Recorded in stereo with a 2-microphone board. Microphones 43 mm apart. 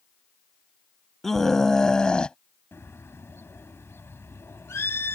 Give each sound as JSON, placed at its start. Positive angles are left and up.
{"t": 1.2, "sound": "a scream", "side_deg": 5}
{"t": 2.7, "sound": "a bird", "side_deg": 70}